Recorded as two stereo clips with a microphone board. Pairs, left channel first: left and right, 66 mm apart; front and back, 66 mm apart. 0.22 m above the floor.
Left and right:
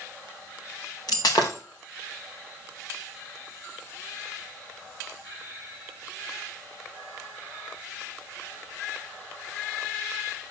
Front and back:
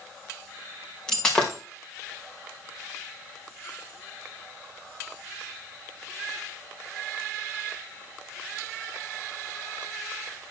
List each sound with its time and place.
1.1 s breaking glass: 80° left, 3.5 m